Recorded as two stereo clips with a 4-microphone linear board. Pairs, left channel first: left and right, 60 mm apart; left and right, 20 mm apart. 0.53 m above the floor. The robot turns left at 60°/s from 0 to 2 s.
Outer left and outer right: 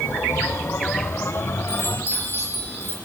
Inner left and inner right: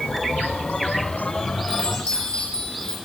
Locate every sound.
1.7 s a chime: 60° left (ahead or behind), 4.5 m; by 2.9 s 45° left (ahead or behind), 4.5 m